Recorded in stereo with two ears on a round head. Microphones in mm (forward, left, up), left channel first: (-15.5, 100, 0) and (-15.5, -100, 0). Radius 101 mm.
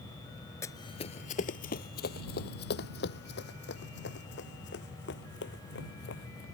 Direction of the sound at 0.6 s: 10° left (ahead or behind).